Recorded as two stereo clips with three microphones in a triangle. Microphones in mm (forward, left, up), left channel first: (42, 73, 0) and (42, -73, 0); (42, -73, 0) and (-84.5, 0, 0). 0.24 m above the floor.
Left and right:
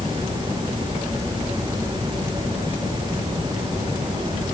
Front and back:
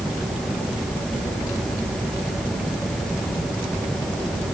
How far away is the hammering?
No hammering in this recording.